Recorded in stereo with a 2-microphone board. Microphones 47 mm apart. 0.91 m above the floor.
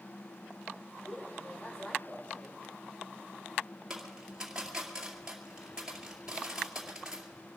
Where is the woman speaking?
25° left (ahead or behind), 4 m.